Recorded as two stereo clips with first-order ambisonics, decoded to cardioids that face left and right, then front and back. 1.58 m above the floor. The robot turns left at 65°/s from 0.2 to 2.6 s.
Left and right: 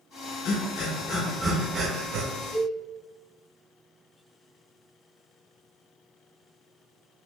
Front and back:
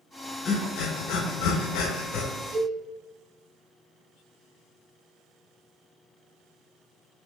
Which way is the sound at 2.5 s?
135° right.